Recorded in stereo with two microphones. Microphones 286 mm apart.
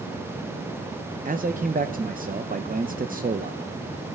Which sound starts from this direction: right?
A man speaking, at 1.2 s.